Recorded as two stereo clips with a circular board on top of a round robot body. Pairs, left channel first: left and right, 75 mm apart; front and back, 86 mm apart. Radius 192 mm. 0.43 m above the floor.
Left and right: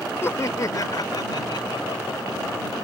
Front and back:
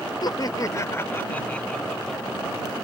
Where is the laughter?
35° left; by 2.4 s 90° left.